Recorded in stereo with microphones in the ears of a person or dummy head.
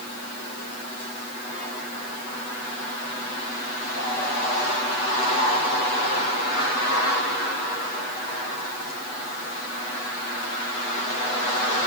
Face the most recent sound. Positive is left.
No sound to turn to.